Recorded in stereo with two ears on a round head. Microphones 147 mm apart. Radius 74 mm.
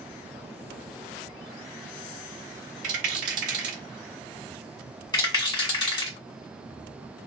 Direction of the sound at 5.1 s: 25° left (ahead or behind).